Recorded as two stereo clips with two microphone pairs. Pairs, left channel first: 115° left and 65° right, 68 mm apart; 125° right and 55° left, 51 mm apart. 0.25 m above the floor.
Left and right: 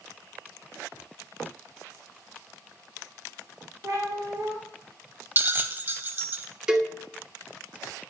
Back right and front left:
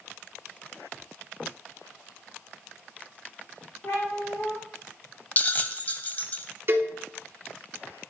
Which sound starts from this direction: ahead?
A cowbell, at 6.7 s.